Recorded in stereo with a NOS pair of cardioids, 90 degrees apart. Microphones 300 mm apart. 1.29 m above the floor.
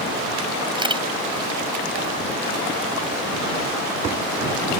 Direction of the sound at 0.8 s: 15° right.